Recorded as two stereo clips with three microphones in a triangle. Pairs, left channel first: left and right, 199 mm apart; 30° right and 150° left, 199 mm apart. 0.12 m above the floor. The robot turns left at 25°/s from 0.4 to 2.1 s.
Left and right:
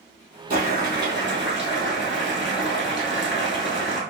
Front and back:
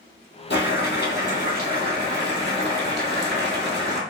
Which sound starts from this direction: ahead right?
Boiling, at 0.5 s.